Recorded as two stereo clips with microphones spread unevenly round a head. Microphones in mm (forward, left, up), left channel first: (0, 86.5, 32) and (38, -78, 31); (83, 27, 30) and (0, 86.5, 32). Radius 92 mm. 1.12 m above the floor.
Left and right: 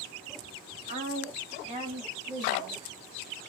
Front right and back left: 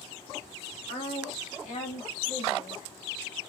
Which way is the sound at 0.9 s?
45° right.